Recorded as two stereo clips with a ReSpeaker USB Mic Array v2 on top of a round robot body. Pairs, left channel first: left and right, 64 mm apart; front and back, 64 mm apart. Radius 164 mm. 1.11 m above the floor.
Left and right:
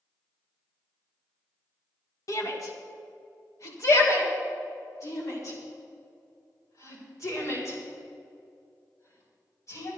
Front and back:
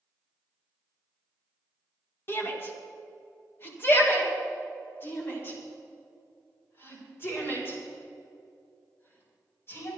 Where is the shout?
55° left, 2.0 m; by 9.9 s 50° left, 6 m.